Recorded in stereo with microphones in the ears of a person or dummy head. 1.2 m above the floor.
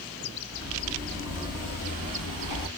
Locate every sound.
0.5 s footsteps: 35° left (ahead or behind), 1.6 m; by 2.7 s 50° left (ahead or behind), 1.9 m